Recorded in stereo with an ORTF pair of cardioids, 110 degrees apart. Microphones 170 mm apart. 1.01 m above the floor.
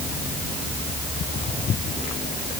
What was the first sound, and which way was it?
Only background noise.